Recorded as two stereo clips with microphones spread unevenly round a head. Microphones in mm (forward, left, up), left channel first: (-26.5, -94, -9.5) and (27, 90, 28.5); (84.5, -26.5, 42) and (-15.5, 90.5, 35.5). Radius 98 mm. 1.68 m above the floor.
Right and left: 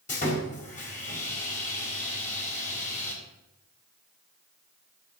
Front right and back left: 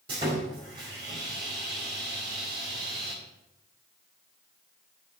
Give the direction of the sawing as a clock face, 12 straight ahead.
5 o'clock.